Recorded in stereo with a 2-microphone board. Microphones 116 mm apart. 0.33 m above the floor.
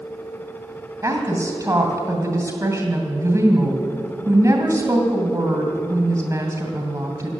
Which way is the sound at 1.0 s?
25° right (ahead or behind).